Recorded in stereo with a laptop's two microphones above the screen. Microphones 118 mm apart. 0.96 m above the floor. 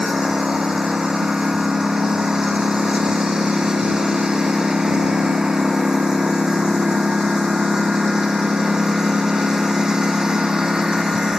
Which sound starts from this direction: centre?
A lawn mower, at 0.0 s.